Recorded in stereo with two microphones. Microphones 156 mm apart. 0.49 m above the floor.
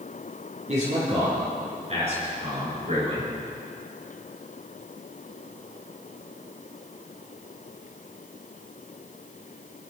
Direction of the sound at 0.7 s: 50° right (ahead or behind).